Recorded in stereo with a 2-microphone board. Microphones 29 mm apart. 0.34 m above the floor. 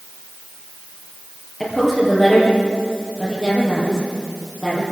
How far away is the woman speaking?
About 8.5 m.